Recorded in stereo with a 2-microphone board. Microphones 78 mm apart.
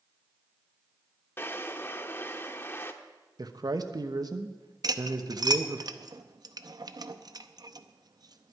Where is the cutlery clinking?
55° right (ahead or behind), 0.6 m.